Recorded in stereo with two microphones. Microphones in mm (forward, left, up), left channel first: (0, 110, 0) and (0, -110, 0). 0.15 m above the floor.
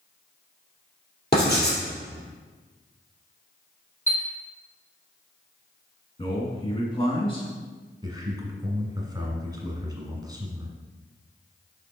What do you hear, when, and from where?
1.3 s writing: 50° left (ahead or behind), 3 m
4.1 s a chime: 15° left (ahead or behind), 1.6 m
6.2 s a man speaking: 25° left (ahead or behind), 1.5 m
8.0 s a man speaking: 20° right (ahead or behind), 1.4 m